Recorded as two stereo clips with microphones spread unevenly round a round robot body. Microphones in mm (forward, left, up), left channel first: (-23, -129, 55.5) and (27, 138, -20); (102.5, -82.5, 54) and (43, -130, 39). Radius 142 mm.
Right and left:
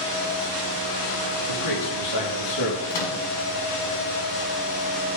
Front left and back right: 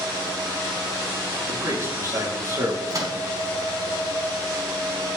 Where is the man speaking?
95° right, 9 m; by 2.8 s 90° right, 9.5 m.